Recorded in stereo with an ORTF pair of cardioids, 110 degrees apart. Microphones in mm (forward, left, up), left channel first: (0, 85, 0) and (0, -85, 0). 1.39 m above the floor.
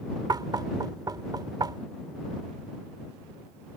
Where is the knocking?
25° right.